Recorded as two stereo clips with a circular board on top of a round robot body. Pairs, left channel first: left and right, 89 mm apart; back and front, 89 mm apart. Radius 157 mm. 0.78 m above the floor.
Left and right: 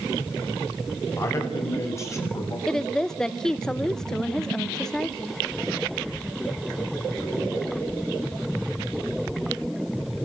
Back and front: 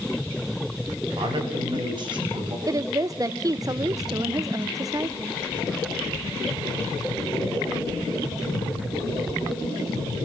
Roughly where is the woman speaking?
Ahead.